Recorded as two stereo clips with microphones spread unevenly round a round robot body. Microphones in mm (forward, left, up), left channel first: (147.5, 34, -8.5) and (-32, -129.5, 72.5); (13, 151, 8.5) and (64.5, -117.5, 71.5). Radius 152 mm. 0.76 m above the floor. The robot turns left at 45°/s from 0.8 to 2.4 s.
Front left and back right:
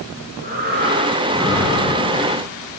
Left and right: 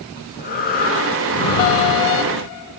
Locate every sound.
0.2 s breathing: 165° left, 2.5 m; by 2.5 s 95° left, 2.5 m